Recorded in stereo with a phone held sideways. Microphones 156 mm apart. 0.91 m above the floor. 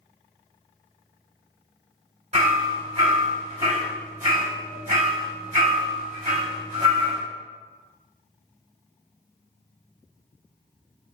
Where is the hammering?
45° right (ahead or behind), 1.7 m.